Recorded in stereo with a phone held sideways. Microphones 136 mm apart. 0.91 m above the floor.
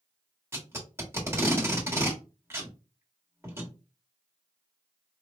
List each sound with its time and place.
0.5 s tape being pulled: 20° right (ahead or behind), 1.3 m